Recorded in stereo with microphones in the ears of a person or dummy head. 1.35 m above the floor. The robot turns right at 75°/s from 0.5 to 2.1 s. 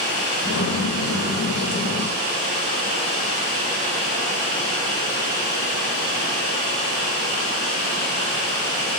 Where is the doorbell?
I don't hear a doorbell.